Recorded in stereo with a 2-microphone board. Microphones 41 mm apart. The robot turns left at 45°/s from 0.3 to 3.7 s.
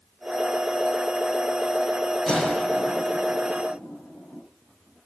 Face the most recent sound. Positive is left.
turn(degrees=55)  # may be behind; listen again after turning